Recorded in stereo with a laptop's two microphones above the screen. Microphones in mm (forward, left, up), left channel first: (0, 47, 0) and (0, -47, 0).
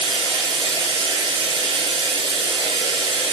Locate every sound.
0.0 s running water: 65° right (ahead or behind), 9.5 m